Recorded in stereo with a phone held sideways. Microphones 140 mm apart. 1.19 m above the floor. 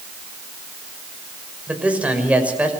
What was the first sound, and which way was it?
A man speaking, 10° right (ahead or behind).